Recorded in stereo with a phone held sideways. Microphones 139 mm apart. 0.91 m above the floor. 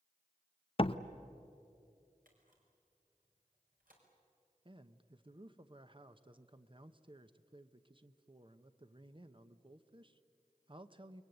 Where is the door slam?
40° left (ahead or behind), 0.6 m.